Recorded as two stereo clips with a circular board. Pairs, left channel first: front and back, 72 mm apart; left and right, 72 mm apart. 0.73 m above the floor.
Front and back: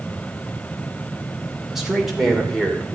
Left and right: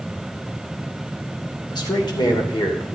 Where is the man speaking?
95° left, 2.5 m; by 3.0 s 80° left, 2.5 m.